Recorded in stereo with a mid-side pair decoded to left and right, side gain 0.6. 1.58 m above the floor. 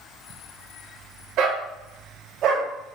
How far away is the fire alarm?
No fire alarm in this recording.